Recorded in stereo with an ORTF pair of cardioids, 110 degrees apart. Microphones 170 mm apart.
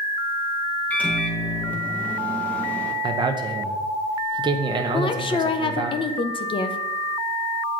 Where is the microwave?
10° left, 1.0 m.